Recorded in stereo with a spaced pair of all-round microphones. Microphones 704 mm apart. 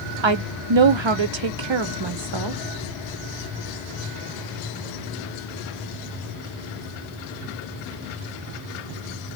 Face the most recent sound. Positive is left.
turn(degrees=-40)  # may be behind; listen again after turning